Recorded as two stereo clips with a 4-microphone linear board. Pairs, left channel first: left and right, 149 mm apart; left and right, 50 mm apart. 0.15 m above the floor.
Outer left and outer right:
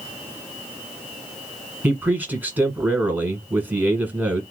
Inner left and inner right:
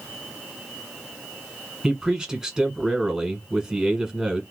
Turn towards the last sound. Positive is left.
turn(degrees=-10)  # may be behind; listen again after turning